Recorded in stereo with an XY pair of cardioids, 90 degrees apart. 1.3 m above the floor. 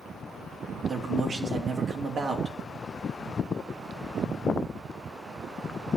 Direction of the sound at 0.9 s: 50° right.